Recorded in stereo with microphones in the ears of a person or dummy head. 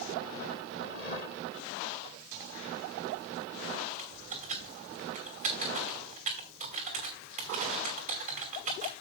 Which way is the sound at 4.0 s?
50° right (ahead or behind).